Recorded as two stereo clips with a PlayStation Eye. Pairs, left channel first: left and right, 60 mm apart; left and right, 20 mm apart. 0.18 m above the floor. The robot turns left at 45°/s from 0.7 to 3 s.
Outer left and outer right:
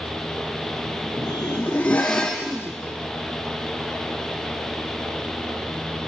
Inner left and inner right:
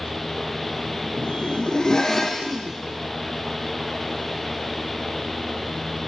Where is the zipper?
65° left, 0.7 m; by 2.8 s 10° right, 0.7 m.